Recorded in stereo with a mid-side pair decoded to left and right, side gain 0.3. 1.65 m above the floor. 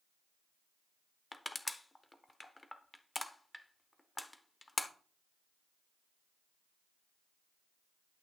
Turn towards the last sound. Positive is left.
turn(degrees=25)